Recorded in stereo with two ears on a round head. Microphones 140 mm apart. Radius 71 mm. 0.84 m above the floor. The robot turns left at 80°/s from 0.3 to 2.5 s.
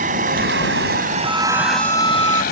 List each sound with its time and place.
0.0 s a vehicle: 50° right (ahead or behind); by 2.5 s 70° left (ahead or behind)
1.2 s a violin: 5° right; by 2.4 s 100° right